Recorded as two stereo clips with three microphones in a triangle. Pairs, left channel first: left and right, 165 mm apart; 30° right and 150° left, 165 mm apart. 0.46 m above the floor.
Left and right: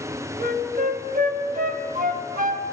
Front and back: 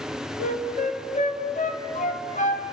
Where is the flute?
65° right, 2 m.